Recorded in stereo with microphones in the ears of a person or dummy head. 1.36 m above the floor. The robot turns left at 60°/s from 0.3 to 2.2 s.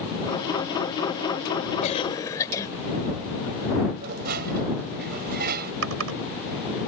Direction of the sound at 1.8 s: 40° left (ahead or behind).